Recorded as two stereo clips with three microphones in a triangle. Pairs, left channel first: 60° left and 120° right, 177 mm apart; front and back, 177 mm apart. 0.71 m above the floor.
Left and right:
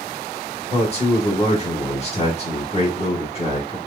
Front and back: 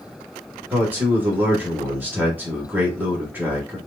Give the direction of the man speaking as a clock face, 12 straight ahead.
9 o'clock.